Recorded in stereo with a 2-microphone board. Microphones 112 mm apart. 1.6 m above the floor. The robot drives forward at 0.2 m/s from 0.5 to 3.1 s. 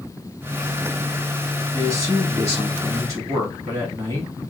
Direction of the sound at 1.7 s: 35° right (ahead or behind).